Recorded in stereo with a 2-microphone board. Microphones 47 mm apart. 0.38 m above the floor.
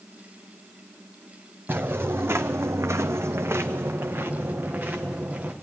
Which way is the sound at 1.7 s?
50° right (ahead or behind).